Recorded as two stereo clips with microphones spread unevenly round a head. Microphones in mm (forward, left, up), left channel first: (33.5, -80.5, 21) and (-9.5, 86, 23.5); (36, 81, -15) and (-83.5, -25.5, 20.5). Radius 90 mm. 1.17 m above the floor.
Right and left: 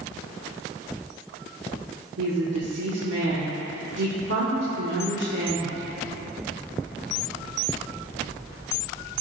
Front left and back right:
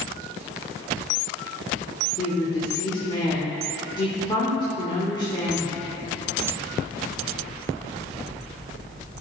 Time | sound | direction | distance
2.2 | a woman speaking | 100° left | 1.5 m